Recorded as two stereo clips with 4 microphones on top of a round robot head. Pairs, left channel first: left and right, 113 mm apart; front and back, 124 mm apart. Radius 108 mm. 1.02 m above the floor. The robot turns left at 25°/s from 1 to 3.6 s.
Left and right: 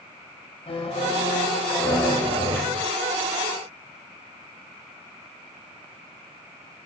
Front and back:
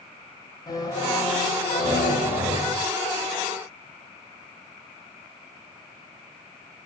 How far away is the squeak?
About 9.5 m.